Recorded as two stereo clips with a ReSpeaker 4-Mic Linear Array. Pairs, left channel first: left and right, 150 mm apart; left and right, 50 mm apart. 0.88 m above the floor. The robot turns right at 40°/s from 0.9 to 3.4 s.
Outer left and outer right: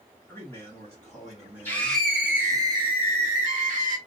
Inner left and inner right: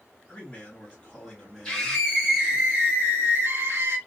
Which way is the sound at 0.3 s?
160° left.